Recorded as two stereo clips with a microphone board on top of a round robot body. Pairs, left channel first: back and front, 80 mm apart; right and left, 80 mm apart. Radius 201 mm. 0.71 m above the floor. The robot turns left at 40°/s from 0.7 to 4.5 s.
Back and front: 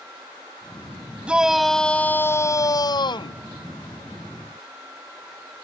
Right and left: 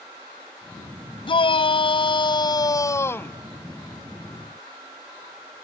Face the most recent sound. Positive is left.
turn(degrees=155)